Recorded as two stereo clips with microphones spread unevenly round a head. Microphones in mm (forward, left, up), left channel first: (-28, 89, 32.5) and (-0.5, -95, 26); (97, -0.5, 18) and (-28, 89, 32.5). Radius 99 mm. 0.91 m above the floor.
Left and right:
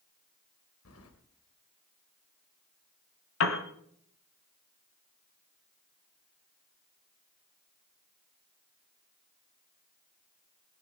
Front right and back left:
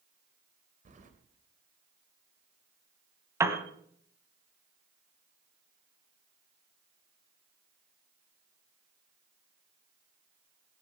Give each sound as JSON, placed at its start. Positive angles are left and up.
{"t": 0.8, "sound": "keys jangling", "azimuth_deg": 105, "distance_m": 2.5}
{"t": 3.4, "sound": "a piano", "azimuth_deg": 75, "distance_m": 1.8}